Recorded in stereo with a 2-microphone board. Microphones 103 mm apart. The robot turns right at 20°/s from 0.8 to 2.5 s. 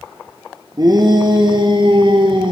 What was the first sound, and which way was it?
A shout, 120° right.